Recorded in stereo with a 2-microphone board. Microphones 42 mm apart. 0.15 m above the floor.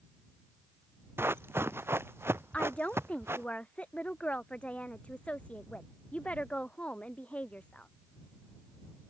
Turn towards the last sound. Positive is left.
turn(degrees=35)  # may be behind; listen again after turning